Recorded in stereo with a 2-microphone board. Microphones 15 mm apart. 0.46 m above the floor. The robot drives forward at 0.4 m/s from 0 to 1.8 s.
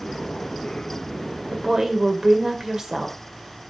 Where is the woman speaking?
35° right (ahead or behind), 2.0 m; by 3.7 s 40° right (ahead or behind), 1.9 m.